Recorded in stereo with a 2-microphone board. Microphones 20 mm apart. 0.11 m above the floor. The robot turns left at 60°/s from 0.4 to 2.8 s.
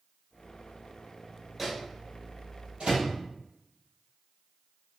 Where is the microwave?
5° right (ahead or behind), 2 m; by 3.1 s 65° right (ahead or behind), 2 m.